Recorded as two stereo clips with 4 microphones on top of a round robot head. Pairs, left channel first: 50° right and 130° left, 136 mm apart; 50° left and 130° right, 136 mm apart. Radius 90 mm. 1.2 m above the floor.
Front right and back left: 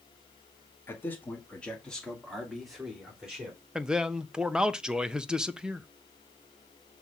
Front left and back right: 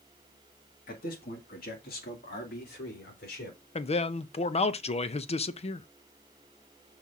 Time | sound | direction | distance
0.9 | a man speaking | 25° left | 2.0 m
3.8 | a man speaking | 50° left | 0.6 m